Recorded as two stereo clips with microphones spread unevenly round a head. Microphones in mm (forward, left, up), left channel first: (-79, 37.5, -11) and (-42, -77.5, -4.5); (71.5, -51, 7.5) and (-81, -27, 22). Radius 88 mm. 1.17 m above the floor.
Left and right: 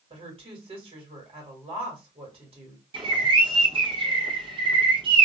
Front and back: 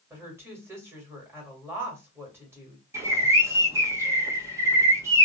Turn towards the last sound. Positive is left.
turn(degrees=-120)